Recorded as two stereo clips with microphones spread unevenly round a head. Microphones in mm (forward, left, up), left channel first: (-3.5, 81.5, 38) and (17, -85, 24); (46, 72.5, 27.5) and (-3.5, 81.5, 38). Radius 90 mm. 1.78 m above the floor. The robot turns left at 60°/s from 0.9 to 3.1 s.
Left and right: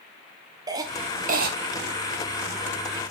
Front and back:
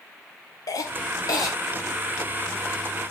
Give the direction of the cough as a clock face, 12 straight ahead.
12 o'clock.